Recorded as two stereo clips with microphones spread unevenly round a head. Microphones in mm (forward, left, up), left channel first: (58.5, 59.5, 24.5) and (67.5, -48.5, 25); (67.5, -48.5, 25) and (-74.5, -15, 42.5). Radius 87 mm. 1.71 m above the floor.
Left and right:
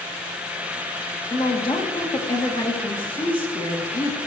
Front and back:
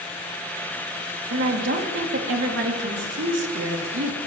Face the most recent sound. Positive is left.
turn(degrees=160)